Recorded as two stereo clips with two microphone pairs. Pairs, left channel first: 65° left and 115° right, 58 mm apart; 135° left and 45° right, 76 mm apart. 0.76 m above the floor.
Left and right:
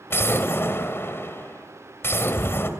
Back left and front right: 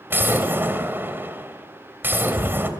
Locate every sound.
0.1 s an explosion: 15° left, 2.5 m